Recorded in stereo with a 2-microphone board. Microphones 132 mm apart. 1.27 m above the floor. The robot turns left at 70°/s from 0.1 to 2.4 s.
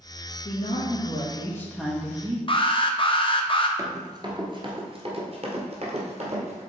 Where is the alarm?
40° left (ahead or behind), 0.7 m.